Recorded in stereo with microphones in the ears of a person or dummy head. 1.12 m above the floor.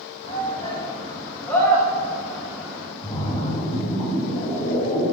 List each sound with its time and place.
0.2 s a shout: 25° left (ahead or behind), 3.5 m; by 2.9 s 20° right (ahead or behind), 3.5 m
3.0 s a splash: 35° left (ahead or behind), 4.5 m